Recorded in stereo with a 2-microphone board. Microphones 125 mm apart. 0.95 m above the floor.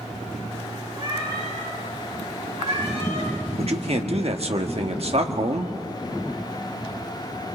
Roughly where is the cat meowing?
Right.